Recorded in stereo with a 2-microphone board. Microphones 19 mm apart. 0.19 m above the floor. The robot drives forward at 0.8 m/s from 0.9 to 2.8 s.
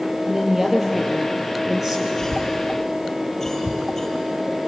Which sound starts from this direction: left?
A cough, at 2.2 s.